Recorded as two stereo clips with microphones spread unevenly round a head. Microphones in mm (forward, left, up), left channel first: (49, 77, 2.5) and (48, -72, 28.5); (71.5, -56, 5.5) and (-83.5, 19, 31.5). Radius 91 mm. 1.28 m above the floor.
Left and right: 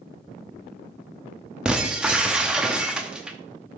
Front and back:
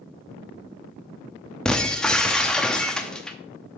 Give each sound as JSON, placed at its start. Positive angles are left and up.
{"t": 1.6, "sound": "breaking glass", "azimuth_deg": -130, "distance_m": 0.7}